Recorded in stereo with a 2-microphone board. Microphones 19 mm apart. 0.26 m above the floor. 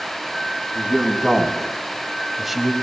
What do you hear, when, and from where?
0.8 s a man speaking: 25° right (ahead or behind), 2.5 m; by 2.7 s 5° right (ahead or behind), 1.5 m